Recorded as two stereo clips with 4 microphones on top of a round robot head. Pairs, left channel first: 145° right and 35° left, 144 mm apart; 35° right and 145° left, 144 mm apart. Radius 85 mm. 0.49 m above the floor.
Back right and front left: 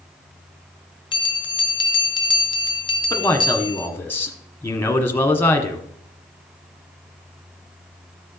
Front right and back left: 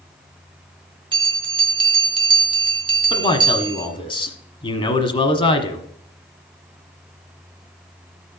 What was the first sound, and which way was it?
A bell, straight behind.